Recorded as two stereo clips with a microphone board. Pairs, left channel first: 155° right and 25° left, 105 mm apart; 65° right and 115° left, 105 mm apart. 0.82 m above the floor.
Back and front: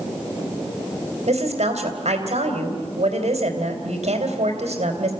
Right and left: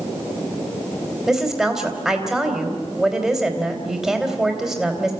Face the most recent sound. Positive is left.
turn(degrees=25)